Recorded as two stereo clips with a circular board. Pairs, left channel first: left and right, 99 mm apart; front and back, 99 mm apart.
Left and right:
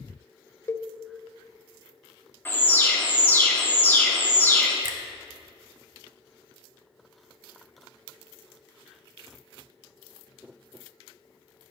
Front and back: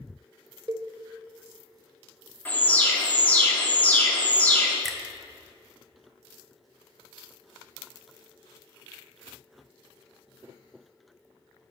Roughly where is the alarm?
Ahead left.